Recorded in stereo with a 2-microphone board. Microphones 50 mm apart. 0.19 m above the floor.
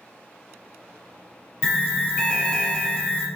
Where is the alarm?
15° left (ahead or behind), 1.0 m.